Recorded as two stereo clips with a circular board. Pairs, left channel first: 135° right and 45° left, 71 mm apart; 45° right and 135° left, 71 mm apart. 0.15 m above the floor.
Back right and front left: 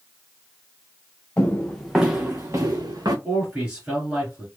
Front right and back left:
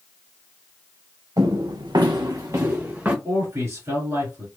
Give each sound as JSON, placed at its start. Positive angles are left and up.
{"t": 1.4, "sound": "footsteps", "azimuth_deg": 160, "distance_m": 0.9}
{"t": 3.2, "sound": "a man speaking", "azimuth_deg": 115, "distance_m": 1.8}